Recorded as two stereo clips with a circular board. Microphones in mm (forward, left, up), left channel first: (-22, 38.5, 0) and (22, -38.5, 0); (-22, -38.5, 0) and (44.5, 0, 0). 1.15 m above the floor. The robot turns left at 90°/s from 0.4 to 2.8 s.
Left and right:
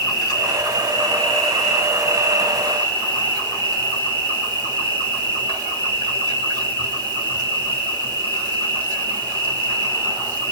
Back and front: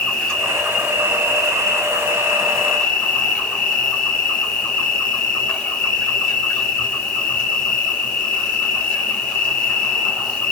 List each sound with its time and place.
0.0 s an insect: 135° left, 1.8 m; by 10.5 s 80° right, 1.8 m